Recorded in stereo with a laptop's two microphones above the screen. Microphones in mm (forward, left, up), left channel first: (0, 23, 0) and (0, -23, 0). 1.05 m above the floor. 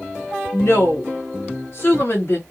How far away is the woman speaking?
About 1.6 m.